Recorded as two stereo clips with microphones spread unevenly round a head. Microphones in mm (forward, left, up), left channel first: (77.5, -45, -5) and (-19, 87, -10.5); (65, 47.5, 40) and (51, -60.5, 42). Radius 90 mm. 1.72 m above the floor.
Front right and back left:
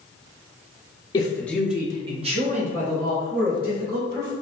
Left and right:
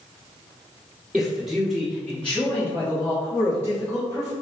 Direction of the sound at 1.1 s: 15° right.